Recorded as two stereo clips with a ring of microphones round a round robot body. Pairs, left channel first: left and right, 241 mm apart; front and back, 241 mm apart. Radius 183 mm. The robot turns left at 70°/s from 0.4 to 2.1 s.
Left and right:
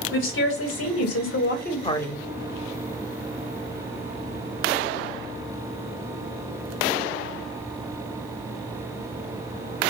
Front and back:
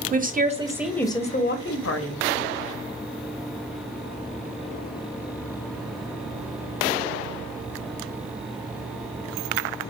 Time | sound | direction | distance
0.1 | a woman speaking | 125° left | 0.8 m